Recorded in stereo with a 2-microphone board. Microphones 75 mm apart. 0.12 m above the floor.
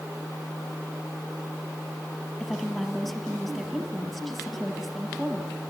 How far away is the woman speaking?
About 3 m.